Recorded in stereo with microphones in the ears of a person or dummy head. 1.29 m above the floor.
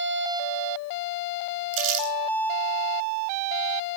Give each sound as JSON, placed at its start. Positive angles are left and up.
{"t": 1.7, "sound": "crumpling", "side_deg": -70, "distance_m": 9.5}